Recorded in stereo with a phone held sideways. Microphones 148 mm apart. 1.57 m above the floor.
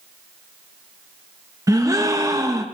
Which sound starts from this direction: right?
A gasp, at 1.7 s.